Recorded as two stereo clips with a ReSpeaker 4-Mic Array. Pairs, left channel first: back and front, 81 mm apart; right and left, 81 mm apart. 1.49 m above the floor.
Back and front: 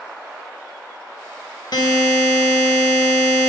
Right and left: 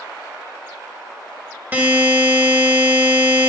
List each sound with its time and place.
1.7 s a buzzer: 155° left, 1.3 m